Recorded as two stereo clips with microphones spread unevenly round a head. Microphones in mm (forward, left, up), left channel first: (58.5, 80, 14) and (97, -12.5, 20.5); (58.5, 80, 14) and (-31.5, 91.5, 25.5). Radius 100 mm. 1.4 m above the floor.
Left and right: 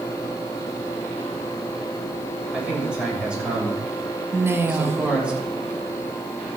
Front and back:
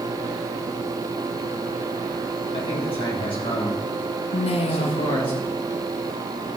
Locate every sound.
2.5 s a man speaking: 15° left, 8 m
4.3 s a woman speaking: straight ahead, 1.5 m